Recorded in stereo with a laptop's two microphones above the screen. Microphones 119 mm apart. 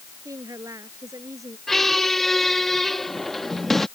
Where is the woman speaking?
25° right (ahead or behind).